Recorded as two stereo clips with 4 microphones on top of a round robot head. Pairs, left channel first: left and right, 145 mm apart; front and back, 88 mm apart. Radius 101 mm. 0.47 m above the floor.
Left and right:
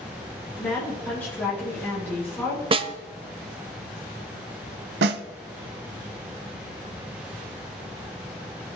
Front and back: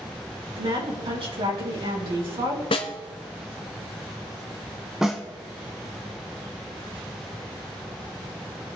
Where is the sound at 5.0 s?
90° right, 0.6 m.